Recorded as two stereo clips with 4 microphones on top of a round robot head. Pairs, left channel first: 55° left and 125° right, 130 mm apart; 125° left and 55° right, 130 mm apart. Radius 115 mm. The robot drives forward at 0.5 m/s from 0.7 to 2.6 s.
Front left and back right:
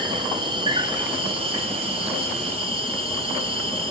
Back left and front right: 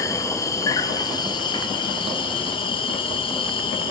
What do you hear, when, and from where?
0.0 s an insect: 175° right, 0.7 m; by 3.9 s straight behind, 1.4 m